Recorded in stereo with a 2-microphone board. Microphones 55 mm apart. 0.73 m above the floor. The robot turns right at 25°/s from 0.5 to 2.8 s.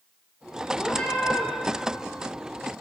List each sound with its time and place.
0.8 s a cat meowing: 20° left (ahead or behind), 2.0 m; by 1.5 s 5° left (ahead or behind), 2.0 m